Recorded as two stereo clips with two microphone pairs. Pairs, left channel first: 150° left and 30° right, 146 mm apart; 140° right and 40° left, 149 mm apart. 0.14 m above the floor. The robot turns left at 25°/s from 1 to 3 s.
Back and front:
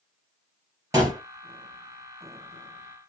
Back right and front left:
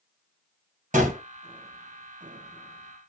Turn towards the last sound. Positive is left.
turn(degrees=-10)